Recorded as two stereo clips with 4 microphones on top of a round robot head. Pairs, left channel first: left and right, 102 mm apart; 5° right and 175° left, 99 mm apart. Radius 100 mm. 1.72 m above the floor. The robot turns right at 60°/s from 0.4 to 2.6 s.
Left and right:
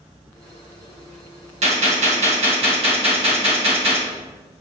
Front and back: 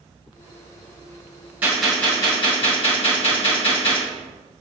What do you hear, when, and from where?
1.6 s a gunshot: 105° right, 2 m; by 4.0 s 45° right, 2 m